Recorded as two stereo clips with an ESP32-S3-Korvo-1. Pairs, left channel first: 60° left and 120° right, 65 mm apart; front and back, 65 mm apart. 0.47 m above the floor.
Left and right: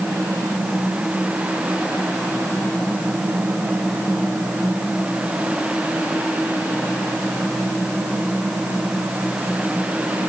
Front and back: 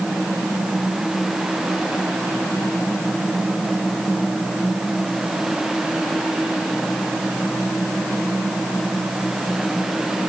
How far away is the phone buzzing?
No phone buzzing in this recording.